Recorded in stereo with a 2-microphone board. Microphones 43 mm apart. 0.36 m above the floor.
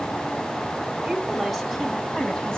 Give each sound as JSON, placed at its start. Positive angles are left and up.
{"t": 1.0, "sound": "a woman speaking", "side_deg": -10, "distance_m": 3.0}